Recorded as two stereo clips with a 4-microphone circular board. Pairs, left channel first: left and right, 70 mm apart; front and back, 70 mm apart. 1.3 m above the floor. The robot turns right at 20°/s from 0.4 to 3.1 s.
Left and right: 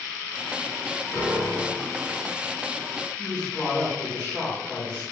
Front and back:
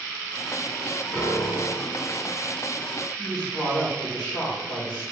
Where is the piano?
30° left, 1.8 m; by 2.0 s 45° left, 1.8 m.